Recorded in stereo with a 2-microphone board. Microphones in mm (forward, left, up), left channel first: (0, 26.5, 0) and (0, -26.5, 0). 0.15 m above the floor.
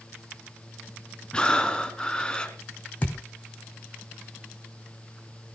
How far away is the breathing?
About 1.8 m.